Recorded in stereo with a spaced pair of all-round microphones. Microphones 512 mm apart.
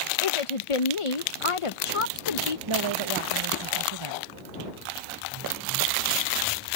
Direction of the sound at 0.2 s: 75° left (ahead or behind).